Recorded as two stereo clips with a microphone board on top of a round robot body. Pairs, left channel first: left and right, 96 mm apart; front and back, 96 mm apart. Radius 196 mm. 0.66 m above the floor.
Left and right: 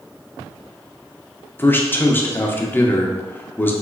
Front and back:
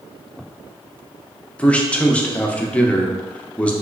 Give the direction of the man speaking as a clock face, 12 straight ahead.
10 o'clock.